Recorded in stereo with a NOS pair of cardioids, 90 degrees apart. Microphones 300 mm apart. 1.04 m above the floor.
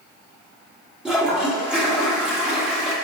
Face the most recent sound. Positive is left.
turn(degrees=-5)